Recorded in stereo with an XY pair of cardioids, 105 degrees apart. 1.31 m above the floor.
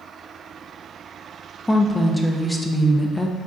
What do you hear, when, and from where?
1.7 s a woman speaking: 10° left, 0.7 m